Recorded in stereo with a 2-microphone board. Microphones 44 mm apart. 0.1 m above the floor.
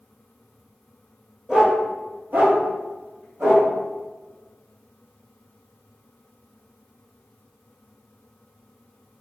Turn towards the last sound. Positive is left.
turn(degrees=-70)  # may be behind; listen again after turning